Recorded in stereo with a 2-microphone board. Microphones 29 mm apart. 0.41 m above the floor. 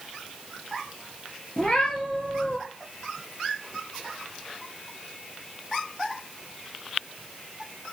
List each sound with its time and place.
1.6 s a cat meowing: 25° left (ahead or behind), 4 m